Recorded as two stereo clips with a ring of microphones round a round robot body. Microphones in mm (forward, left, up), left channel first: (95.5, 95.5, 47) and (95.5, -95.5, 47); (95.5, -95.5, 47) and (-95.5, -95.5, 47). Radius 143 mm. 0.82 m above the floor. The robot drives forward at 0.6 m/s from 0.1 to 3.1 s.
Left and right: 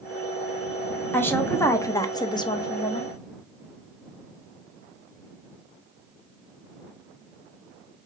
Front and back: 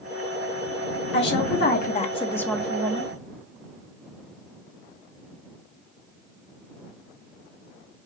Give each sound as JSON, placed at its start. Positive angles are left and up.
{"t": 1.1, "sound": "a woman speaking", "azimuth_deg": 10, "distance_m": 1.0}